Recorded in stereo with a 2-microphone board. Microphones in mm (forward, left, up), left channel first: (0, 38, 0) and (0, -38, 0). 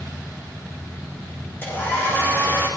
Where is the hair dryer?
25° left (ahead or behind), 9.5 m.